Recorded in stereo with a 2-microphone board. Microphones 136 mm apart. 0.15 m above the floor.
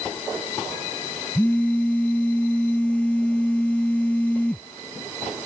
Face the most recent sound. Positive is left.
turn(degrees=10)  # may be behind; listen again after turning